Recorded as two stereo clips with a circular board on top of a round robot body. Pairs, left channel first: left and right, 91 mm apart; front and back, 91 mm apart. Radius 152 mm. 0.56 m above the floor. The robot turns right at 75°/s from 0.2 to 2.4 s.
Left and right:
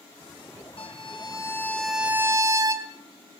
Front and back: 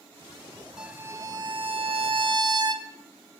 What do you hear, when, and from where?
0.8 s a violin: 95° left, 2.5 m; by 2.9 s 140° right, 2.5 m